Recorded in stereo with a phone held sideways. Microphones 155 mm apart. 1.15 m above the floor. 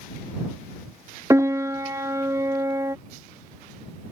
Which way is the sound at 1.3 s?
20° right (ahead or behind).